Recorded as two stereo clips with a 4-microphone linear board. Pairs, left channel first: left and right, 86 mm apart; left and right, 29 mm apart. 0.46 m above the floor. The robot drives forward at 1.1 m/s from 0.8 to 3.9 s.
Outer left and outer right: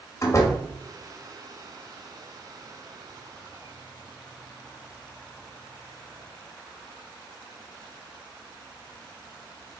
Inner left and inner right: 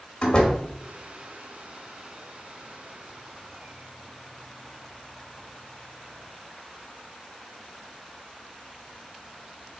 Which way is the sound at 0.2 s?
35° left (ahead or behind).